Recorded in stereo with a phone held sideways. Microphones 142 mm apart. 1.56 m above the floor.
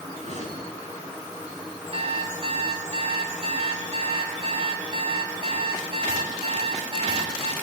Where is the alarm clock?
45° right (ahead or behind), 5.5 m.